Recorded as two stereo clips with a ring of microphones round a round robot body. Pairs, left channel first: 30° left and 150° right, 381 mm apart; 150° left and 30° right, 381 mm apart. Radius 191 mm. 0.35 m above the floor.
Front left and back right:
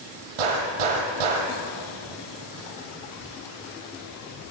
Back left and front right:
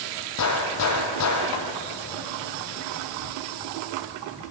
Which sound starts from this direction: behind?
A gunshot, at 0.4 s.